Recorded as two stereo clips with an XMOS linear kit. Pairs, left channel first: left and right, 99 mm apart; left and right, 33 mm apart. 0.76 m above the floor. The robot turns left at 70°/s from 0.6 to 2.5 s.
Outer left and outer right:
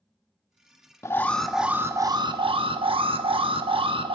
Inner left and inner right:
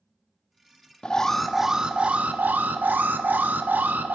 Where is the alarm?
30° left, 0.6 m; by 4.2 s 70° right, 0.6 m.